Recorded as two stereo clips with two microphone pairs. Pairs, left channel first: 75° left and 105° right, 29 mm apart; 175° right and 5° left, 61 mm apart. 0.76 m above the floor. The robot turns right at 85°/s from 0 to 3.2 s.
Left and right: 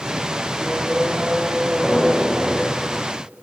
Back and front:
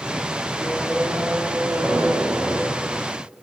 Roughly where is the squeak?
Behind right.